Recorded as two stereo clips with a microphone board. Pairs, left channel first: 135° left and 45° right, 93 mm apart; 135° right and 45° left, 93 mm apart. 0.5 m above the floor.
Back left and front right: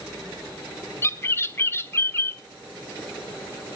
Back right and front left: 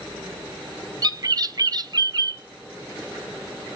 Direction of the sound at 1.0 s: 80° left.